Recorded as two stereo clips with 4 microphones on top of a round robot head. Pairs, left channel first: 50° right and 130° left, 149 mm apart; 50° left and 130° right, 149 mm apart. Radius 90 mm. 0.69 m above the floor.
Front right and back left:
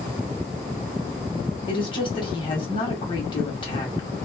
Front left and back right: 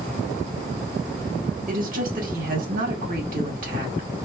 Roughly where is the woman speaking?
Right.